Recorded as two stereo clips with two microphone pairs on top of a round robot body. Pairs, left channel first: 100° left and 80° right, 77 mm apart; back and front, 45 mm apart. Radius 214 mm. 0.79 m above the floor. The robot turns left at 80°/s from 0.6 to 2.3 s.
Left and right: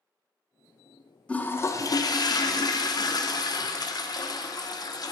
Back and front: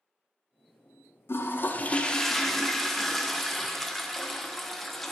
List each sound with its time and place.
1.3 s a toilet flushing: 175° left, 0.8 m; by 5.1 s 90° left, 0.8 m